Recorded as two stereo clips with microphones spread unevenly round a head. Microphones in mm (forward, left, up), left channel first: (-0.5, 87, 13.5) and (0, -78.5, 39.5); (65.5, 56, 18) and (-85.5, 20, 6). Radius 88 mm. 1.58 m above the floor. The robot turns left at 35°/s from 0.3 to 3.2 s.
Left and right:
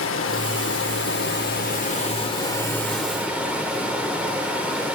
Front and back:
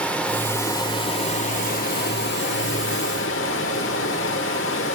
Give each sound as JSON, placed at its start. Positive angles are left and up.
{"t": 0.0, "sound": "running water", "azimuth_deg": 95, "distance_m": 1.4}